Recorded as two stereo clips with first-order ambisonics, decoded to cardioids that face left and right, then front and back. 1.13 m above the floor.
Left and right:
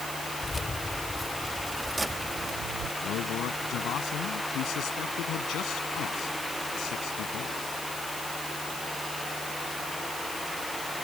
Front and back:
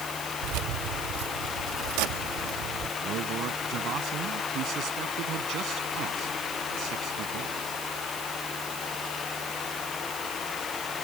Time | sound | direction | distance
0.4 | keys jangling | 170° left | ?
3.0 | a man speaking | 135° left | ?